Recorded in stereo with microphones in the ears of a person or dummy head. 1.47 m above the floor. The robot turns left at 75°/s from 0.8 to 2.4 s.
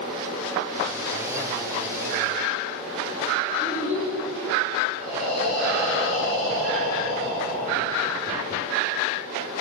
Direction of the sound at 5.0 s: 15° right (ahead or behind).